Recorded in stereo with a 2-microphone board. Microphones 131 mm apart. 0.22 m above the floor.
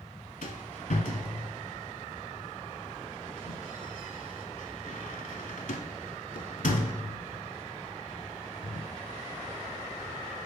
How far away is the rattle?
About 0.7 m.